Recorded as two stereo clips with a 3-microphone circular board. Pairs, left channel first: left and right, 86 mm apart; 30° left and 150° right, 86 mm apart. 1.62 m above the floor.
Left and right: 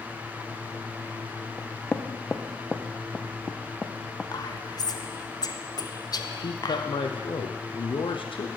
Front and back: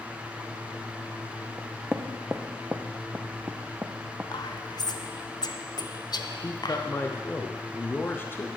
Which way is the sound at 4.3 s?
60° left.